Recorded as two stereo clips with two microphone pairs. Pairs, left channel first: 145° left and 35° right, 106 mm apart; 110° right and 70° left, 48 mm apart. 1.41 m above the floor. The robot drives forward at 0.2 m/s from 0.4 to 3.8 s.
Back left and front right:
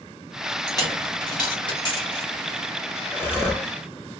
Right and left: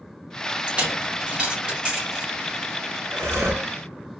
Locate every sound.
0.7 s a dropped coin: 120° left, 1.2 m; by 2.3 s 135° left, 1.4 m
3.1 s breathing: 75° left, 0.7 m; by 3.7 s 85° left, 0.7 m